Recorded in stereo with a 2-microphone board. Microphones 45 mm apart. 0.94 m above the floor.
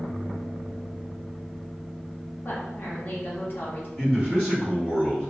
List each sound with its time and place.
2.5 s a woman speaking: 50° left (ahead or behind), 0.9 m
4.0 s a man speaking: 20° left (ahead or behind), 1.8 m